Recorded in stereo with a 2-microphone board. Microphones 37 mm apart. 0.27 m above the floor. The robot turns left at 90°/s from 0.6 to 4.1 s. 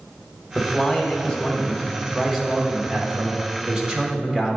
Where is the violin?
I don't hear a violin.